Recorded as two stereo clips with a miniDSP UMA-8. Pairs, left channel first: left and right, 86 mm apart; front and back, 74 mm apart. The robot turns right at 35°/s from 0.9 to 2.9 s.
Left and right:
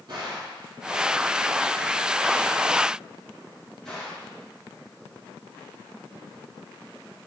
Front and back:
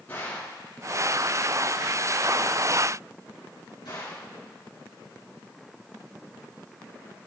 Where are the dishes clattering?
I don't hear dishes clattering.